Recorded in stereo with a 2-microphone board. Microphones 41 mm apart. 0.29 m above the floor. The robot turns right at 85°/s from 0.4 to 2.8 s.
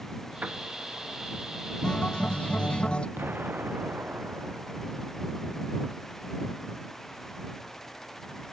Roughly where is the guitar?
Centre.